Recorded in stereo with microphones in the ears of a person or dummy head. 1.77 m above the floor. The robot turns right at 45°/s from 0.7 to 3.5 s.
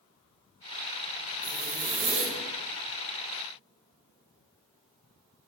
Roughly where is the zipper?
Right.